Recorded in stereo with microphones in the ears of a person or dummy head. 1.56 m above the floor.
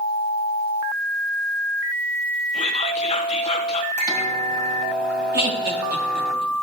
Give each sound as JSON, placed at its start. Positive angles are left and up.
{"t": 2.5, "sound": "whispering", "side_deg": 30, "distance_m": 1.4}
{"t": 4.0, "sound": "a microwave", "side_deg": -5, "distance_m": 2.0}
{"t": 5.3, "sound": "laughter", "side_deg": -60, "distance_m": 2.0}